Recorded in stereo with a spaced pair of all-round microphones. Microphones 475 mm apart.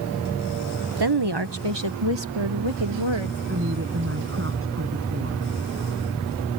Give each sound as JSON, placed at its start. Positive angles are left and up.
{"t": 1.0, "sound": "a woman speaking", "side_deg": -55}
{"t": 3.5, "sound": "a woman speaking", "side_deg": -25}